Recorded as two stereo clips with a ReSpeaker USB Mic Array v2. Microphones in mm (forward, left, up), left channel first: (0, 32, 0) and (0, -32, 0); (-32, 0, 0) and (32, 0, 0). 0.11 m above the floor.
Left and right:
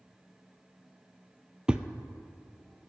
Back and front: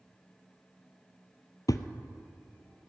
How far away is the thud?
About 0.7 m.